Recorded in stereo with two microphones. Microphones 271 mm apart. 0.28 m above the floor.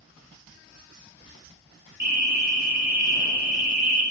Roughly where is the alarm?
Right.